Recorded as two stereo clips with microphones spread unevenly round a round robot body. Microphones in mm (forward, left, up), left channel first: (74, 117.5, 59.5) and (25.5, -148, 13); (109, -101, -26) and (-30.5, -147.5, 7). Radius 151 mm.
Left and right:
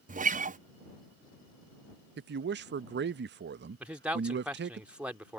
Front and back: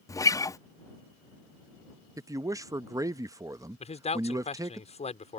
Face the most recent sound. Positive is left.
turn(degrees=-20)